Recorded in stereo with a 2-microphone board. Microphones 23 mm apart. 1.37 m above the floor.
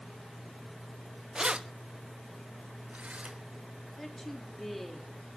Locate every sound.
1.4 s keys jangling: 30° right (ahead or behind), 0.7 m; by 3.4 s 80° right, 3.5 m
4.0 s a woman speaking: 10° left (ahead or behind), 3.5 m